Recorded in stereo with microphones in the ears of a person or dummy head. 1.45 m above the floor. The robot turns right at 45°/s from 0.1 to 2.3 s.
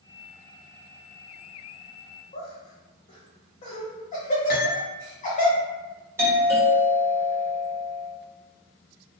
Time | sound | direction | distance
2.3 | laughter | 35° left (ahead or behind) | 1.1 m
4.5 | cutlery clinking | 60° left (ahead or behind) | 1.3 m
6.2 | a doorbell | 15° right (ahead or behind) | 1.3 m